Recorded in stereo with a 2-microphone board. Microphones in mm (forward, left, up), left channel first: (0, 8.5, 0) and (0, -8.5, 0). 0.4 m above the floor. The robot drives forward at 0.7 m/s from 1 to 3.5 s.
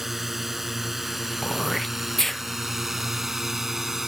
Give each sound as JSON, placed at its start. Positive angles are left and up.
{"t": 0.0, "sound": "a drone", "side_deg": -5}
{"t": 1.4, "sound": "throat clearing", "side_deg": 20}